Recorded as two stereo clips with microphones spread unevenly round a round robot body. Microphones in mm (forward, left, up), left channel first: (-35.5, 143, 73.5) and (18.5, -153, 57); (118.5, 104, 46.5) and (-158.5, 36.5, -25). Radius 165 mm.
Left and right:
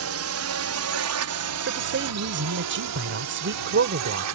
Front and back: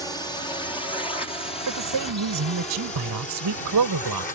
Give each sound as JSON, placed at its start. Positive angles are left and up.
{"t": 0.0, "sound": "a drone", "azimuth_deg": -75}
{"t": 1.7, "sound": "a man speaking", "azimuth_deg": -130}